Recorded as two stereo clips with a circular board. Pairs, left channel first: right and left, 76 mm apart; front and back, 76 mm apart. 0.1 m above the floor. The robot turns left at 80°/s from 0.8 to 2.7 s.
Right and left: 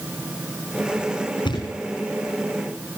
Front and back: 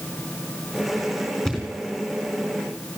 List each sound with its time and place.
1.4 s a thud: 90° right, 4.5 m; by 1.8 s 120° right, 4.5 m